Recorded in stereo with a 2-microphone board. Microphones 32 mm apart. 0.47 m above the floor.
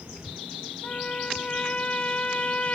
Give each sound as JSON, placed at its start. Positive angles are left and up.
{"t": 0.8, "sound": "a trumpet", "side_deg": 35, "distance_m": 1.2}